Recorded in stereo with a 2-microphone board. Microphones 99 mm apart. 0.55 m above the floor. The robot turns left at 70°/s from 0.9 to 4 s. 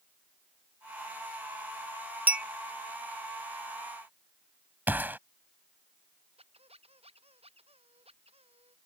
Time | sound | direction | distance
2.3 | a clink | 15° right (ahead or behind) | ?
4.9 | a gunshot | 20° right (ahead or behind) | ?
6.4 | a squeak | 85° right | ?